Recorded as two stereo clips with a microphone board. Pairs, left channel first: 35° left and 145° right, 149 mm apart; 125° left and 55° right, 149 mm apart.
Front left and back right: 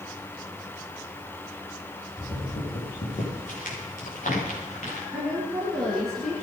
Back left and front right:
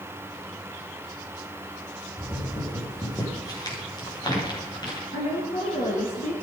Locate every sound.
2.2 s footsteps: 60° left, 7.5 m; by 5.0 s 65° left, 11.5 m
5.1 s a woman speaking: 120° left, 4 m